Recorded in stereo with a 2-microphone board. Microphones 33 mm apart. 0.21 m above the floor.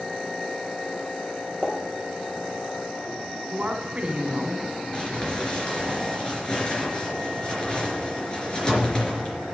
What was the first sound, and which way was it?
A pop, 5° left (ahead or behind).